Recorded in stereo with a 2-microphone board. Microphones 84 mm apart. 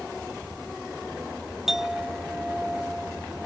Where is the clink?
5° right (ahead or behind).